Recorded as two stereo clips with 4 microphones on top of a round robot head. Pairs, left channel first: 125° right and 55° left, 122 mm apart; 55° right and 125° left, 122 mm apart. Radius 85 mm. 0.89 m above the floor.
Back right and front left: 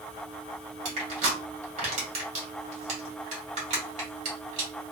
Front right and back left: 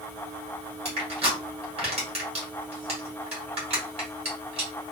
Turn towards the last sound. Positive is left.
turn(degrees=85)